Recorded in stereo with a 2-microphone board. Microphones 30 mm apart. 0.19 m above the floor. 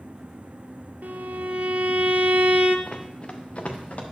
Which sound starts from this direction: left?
Running footsteps, at 2.9 s.